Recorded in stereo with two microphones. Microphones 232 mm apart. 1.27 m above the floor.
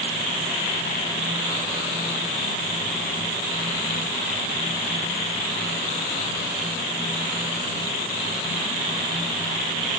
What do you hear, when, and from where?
Only background noise.